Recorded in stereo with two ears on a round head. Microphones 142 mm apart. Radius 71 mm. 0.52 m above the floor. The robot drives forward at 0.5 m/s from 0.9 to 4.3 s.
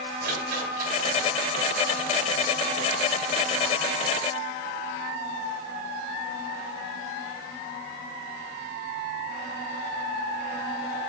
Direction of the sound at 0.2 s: 60° right (ahead or behind).